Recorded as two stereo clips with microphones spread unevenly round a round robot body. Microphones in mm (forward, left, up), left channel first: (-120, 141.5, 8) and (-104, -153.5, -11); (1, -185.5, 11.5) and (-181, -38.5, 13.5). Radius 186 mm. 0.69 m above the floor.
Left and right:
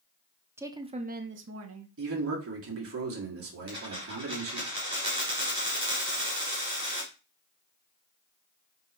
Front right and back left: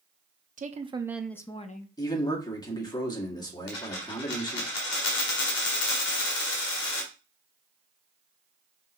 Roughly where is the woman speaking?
Behind.